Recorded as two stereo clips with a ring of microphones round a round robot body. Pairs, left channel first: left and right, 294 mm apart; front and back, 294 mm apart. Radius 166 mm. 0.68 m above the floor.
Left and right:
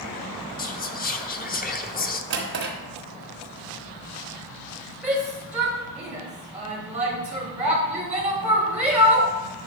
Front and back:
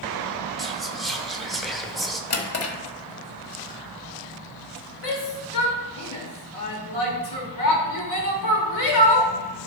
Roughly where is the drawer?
Ahead right.